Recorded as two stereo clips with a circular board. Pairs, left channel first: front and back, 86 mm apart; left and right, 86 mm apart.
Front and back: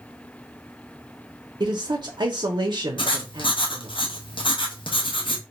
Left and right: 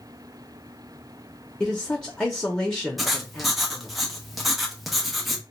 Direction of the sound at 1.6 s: 170° left.